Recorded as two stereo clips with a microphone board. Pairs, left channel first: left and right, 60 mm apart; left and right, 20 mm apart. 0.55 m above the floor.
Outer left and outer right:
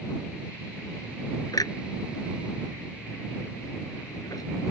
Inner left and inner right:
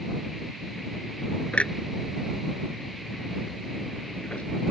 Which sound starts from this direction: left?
A clunk, at 1.5 s.